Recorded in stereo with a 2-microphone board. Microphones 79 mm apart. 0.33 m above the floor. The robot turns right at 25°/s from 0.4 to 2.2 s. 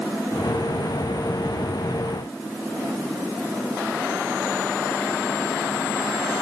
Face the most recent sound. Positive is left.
No sound to turn to.